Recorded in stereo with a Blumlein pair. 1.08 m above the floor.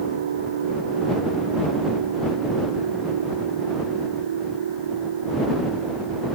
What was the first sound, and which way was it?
A machine running, 65° right.